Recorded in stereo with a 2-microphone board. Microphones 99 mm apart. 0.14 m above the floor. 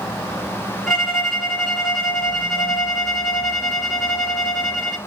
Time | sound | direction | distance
0.9 | a violin | centre (ahead or behind) | 1.3 m